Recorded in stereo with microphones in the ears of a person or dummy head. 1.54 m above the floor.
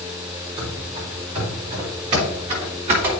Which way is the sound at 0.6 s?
25° right (ahead or behind).